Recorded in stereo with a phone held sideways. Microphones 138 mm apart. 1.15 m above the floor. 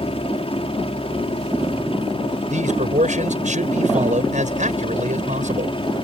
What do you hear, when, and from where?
0.0 s a helicopter: 45° left (ahead or behind); by 6.0 s 40° left (ahead or behind)
2.5 s a man speaking: 70° right (ahead or behind)